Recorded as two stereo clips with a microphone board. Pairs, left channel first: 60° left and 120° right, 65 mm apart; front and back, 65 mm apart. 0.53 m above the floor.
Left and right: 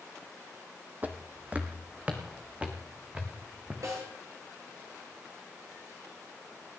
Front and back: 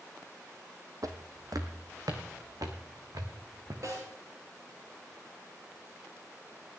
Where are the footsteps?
Straight behind, 1.3 m; by 3.7 s 170° left, 3 m.